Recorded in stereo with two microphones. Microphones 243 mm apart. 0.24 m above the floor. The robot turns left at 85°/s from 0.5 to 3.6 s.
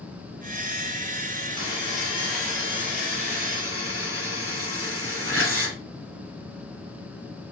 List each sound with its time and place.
1.6 s a buzzer: 110° right, 3 m; by 5.8 s 75° left, 3 m